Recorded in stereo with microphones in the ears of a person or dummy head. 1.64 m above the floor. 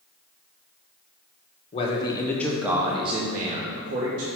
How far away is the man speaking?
About 1.2 m.